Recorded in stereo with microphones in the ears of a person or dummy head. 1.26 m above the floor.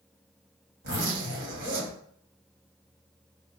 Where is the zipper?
50° right (ahead or behind), 1.4 m.